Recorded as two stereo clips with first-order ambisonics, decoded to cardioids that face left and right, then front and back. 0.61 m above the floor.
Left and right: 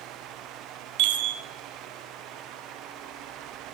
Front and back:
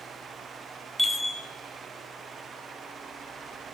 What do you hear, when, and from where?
1.0 s a chime: 95° right, 1.2 m